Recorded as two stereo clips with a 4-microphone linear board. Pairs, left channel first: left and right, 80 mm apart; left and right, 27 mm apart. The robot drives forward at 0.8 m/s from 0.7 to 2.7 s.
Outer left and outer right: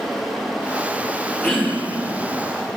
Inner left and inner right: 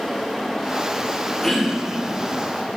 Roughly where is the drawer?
No drawer in this recording.